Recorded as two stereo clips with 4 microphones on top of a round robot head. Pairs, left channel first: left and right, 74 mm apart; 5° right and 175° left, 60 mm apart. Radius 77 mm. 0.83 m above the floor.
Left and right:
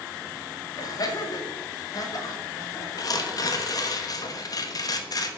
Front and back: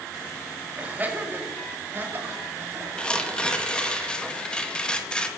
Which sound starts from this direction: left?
Tearing paper, at 3.0 s.